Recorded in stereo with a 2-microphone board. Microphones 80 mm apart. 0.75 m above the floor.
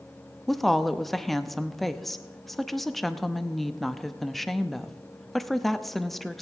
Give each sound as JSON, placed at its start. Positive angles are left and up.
{"t": 0.5, "sound": "a woman speaking", "side_deg": 0, "distance_m": 0.6}